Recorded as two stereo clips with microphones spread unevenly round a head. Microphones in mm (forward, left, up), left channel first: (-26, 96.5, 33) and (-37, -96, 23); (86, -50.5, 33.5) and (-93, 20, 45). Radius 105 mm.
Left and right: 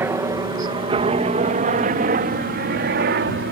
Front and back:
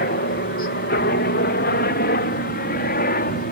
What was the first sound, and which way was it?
A helicopter, 20° right.